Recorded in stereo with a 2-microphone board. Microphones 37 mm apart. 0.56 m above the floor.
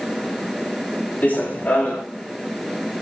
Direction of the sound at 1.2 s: 45° left (ahead or behind).